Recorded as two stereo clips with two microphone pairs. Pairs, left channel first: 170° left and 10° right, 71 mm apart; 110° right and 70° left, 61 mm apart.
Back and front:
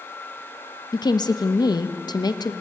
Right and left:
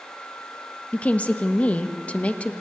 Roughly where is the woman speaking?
Behind.